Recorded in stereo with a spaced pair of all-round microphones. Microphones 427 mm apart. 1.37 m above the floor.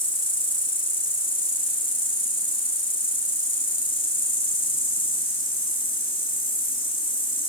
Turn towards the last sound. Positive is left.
turn(degrees=10)  # may be behind; listen again after turning